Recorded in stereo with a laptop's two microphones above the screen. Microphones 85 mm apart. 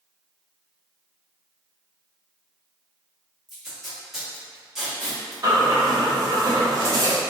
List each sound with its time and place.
3.5 s tape being pulled: 5° right (ahead or behind), 1.0 m
5.4 s breathing: 40° right (ahead or behind), 0.8 m